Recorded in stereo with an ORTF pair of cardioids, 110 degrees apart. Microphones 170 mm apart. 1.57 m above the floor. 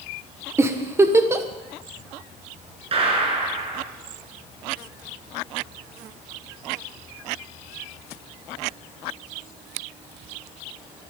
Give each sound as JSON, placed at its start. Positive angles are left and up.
{"t": 0.6, "sound": "a giggle", "azimuth_deg": -15, "distance_m": 1.4}
{"t": 2.9, "sound": "a gunshot", "azimuth_deg": -35, "distance_m": 4.5}